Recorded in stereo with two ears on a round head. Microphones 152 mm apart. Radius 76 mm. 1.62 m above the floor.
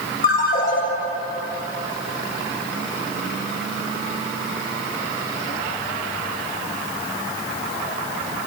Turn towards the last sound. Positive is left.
turn(degrees=50)  # may be behind; listen again after turning